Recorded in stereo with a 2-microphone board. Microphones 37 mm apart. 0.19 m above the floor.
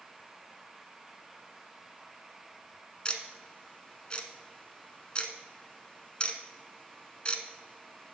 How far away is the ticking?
About 0.8 m.